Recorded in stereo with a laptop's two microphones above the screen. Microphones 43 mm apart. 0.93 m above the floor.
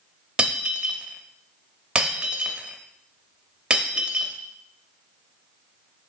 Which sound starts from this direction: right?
Breaking glass, at 0.4 s.